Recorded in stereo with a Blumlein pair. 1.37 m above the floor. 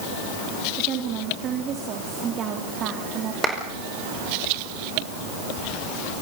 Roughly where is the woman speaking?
Ahead right.